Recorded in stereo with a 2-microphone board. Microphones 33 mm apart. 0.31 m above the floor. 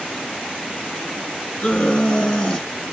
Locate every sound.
1.6 s a scream: 15° left (ahead or behind), 3.5 m